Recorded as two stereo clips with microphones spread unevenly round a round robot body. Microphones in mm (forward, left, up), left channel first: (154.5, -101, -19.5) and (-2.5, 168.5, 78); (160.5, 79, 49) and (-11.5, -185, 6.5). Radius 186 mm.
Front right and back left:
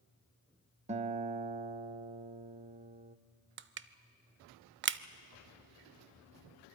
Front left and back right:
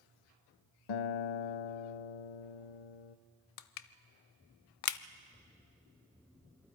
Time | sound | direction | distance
0.9 | a guitar | 45° left | 0.6 m
3.6 | crushing | 55° left | 0.6 m